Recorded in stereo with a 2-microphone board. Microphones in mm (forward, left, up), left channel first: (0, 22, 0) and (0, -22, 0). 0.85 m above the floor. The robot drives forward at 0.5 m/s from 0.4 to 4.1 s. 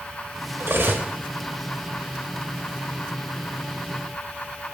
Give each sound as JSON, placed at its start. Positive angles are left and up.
{"t": 0.6, "sound": "cutlery clinking", "side_deg": -60, "distance_m": 0.7}